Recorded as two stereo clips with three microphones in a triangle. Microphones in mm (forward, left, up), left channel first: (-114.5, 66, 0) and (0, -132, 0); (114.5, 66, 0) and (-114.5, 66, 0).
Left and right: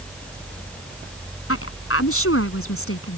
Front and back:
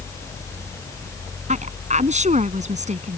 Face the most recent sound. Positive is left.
turn(degrees=120)